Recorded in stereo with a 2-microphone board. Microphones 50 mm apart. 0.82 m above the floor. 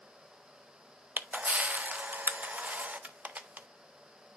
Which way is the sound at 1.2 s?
30° right (ahead or behind).